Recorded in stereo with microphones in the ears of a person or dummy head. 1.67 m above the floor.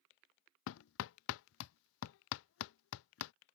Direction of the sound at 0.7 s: 70° left (ahead or behind).